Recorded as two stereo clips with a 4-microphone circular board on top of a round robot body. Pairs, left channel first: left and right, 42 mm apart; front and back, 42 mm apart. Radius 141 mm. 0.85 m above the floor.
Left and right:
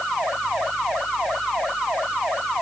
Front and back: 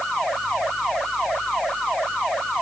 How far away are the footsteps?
I don't hear footsteps.